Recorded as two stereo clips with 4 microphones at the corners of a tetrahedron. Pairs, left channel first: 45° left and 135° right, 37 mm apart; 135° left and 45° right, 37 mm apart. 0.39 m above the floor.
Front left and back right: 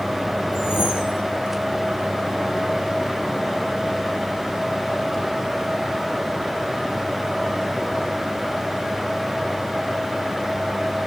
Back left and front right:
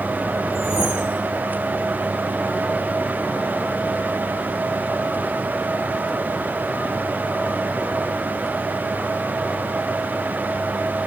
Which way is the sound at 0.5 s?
30° left.